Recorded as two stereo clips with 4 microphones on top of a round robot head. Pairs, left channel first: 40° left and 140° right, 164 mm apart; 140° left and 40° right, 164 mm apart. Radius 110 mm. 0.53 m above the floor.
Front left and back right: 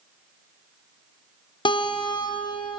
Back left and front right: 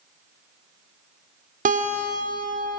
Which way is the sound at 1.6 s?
15° right.